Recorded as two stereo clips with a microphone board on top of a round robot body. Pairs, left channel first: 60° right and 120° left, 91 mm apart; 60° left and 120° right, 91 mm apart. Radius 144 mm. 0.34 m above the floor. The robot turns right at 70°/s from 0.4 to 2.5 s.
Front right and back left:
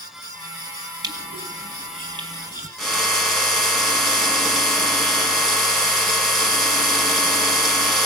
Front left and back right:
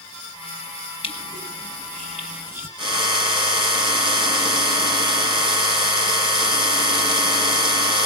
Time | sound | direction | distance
1.0 | crushing | 75° left | 4.5 m
2.8 | a drill | 150° right | 5 m